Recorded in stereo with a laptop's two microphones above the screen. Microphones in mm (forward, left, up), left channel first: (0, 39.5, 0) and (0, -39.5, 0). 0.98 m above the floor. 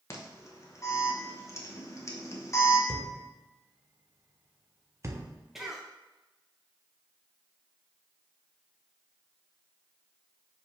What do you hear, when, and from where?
0.1 s an alarm: 35° left (ahead or behind), 1.1 m
2.9 s a thud: 35° right (ahead or behind), 0.7 m
5.5 s a cough: 5° right (ahead or behind), 0.6 m